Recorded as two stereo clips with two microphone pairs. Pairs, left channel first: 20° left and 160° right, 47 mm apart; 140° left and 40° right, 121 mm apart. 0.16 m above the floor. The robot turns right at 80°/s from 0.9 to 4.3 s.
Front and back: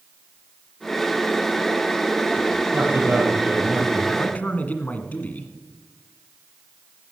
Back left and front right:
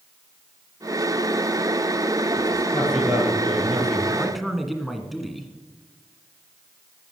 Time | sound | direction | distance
2.7 | a man speaking | 150° right | 3.5 m
4.1 | a man speaking | 30° left | 1.6 m